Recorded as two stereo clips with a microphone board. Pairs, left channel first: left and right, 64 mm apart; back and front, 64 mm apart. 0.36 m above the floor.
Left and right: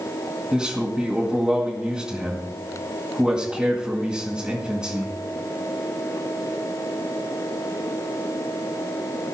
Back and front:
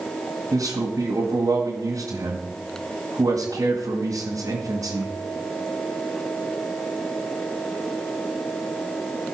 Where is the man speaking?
15° right, 2 m.